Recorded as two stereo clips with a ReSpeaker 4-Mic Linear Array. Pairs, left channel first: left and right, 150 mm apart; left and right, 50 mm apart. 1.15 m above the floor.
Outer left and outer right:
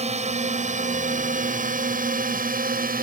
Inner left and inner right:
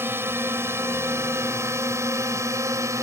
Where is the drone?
50° right (ahead or behind); by 3.0 s 75° right (ahead or behind).